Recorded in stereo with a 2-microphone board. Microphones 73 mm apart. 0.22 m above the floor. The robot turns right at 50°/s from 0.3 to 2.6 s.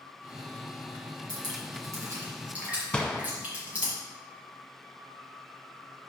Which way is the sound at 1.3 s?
70° right (ahead or behind).